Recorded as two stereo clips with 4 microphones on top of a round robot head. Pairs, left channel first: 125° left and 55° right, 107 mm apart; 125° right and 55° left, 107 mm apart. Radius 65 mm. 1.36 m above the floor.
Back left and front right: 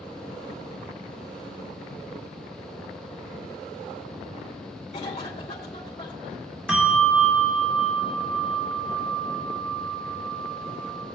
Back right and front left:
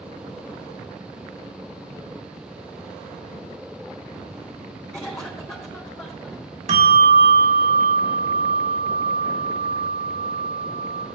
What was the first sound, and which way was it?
A cough, 170° left.